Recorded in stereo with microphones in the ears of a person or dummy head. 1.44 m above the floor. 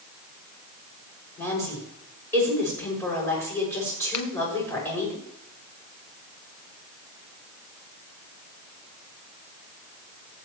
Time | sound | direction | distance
1.4 | a woman speaking | 15° left (ahead or behind) | 6.5 m
4.1 | a finger snap | 25° left (ahead or behind) | 1.4 m